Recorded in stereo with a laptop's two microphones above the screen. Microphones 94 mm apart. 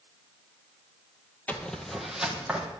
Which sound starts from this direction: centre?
Footsteps, at 1.5 s.